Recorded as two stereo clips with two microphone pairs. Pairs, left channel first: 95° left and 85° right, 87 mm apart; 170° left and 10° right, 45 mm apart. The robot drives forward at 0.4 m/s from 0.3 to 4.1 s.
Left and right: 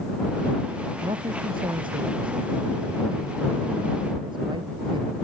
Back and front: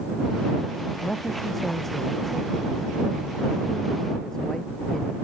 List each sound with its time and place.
1.0 s a man speaking: 100° right; by 5.2 s 110° right